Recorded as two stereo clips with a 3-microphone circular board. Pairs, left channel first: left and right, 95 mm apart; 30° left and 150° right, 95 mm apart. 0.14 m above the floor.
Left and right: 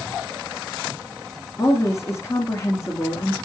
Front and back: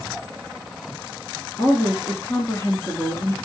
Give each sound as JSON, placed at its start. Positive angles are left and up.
{"t": 1.6, "sound": "a woman speaking", "azimuth_deg": 60, "distance_m": 1.4}